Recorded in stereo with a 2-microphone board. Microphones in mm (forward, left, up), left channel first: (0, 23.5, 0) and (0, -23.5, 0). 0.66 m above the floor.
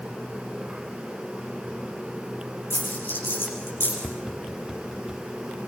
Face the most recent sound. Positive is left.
turn(degrees=-10)  # may be behind; listen again after turning